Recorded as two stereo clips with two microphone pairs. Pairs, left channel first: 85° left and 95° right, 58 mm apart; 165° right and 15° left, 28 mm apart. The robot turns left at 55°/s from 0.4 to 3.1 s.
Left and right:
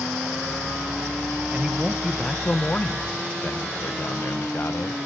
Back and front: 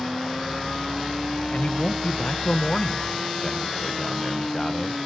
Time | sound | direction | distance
1.5 | a man speaking | 150° right | 0.9 m